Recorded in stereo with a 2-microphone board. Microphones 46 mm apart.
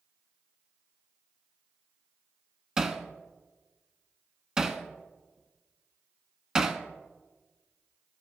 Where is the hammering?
15° right (ahead or behind), 0.7 m.